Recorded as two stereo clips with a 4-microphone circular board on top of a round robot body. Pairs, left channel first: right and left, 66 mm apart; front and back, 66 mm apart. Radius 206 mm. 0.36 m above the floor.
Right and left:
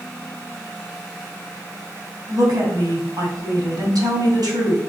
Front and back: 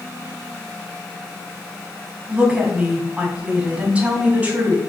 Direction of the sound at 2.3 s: 105° left.